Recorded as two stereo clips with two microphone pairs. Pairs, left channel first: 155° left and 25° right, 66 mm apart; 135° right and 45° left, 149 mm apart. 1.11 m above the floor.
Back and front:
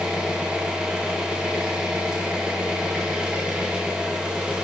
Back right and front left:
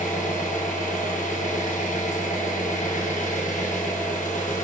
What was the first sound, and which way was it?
An engine running, 105° right.